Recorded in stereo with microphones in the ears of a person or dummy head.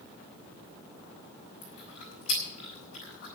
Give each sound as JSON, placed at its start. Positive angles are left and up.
{"t": 1.6, "sound": "chewing", "side_deg": 40, "distance_m": 6.0}